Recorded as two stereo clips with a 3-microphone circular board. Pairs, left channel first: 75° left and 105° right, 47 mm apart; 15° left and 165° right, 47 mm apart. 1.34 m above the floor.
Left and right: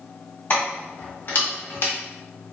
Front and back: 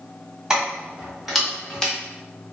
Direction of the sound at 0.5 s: 120° left.